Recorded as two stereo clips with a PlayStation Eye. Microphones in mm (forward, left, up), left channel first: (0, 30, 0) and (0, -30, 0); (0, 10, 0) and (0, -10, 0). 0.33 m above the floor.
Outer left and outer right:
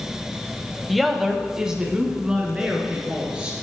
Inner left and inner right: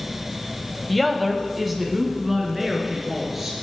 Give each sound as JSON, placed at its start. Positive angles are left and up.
{"t": 0.9, "sound": "a woman speaking", "side_deg": 0, "distance_m": 1.1}